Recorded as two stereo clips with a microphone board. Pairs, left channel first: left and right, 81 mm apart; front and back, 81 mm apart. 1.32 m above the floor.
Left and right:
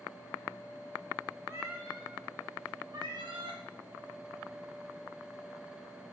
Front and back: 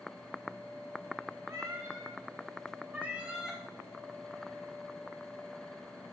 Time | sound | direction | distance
1.5 | a cat meowing | 145° right | 2 m